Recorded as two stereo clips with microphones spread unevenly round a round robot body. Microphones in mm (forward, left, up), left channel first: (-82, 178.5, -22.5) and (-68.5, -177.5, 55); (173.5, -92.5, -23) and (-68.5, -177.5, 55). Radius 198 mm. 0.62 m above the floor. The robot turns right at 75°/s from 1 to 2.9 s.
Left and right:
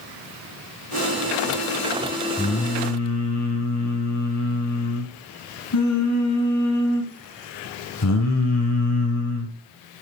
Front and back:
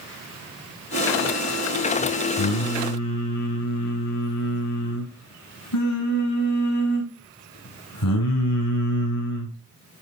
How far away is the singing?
About 5 m.